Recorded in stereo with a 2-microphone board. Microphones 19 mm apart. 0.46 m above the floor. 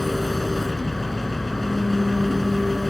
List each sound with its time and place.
0.0 s an engine running: 10° left (ahead or behind)